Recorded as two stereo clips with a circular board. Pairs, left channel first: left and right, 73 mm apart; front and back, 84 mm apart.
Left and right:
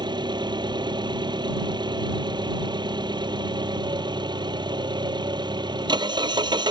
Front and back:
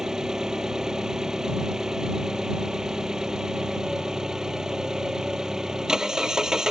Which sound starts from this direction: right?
An engine running, at 0.0 s.